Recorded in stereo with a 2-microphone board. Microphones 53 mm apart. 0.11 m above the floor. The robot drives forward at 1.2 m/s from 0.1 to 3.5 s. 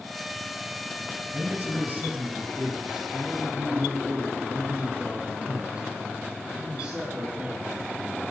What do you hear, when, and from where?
1.3 s a man speaking: 40° right (ahead or behind), 2 m; by 8.3 s 20° right (ahead or behind), 4 m